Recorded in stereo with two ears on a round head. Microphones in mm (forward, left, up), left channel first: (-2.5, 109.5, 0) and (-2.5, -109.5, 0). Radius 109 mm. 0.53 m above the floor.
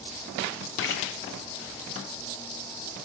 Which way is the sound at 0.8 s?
55° left (ahead or behind).